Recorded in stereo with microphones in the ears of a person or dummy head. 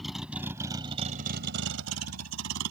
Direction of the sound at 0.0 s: 5° right (ahead or behind).